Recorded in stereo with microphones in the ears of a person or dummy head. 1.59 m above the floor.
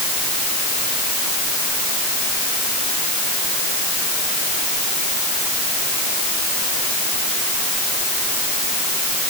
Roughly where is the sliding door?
I don't hear a sliding door.